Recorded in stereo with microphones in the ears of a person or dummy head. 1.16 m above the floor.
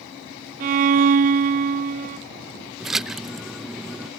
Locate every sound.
0.6 s a violin: 45° right (ahead or behind)
2.8 s a splash: centre (ahead or behind)